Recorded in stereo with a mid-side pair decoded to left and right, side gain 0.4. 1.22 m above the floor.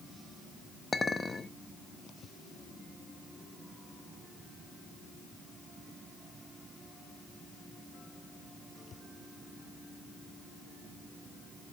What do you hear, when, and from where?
0.9 s a clink: 30° left, 1.3 m